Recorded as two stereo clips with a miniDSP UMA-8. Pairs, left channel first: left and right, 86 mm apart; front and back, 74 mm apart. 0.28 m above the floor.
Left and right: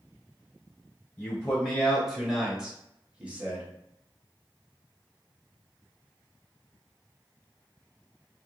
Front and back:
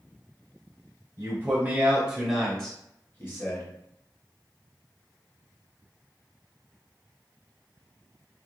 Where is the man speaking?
165° left, 1.1 m; by 3.7 s 25° right, 1.2 m.